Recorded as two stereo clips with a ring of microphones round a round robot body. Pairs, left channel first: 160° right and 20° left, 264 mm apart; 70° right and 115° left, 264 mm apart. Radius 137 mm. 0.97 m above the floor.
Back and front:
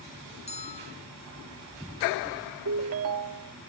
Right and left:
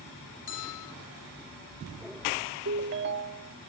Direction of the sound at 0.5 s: 90° right.